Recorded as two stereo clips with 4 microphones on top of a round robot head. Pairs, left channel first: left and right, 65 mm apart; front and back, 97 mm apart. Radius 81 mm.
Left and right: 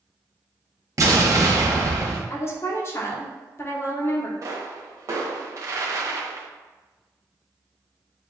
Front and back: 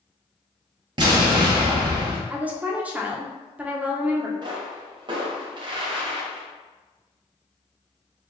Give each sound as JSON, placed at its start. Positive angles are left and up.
{"t": 1.0, "sound": "an explosion", "azimuth_deg": -130, "distance_m": 1.0}
{"t": 2.3, "sound": "a woman speaking", "azimuth_deg": 110, "distance_m": 1.0}
{"t": 4.4, "sound": "a pop", "azimuth_deg": -130, "distance_m": 0.8}